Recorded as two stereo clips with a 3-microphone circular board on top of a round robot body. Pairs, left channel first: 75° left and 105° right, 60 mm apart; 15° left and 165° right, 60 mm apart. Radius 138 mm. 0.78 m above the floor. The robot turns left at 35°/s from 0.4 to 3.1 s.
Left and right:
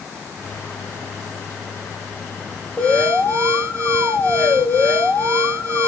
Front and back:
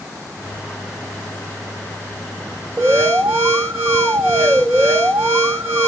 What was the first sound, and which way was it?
An alarm, 150° left.